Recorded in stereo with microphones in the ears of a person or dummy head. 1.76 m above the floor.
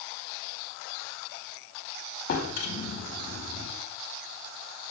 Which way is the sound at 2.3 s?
60° left (ahead or behind).